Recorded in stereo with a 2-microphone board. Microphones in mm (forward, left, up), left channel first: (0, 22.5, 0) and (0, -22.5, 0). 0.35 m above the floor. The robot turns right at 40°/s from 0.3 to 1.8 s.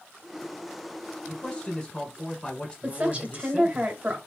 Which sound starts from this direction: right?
A woman speaking, at 2.8 s.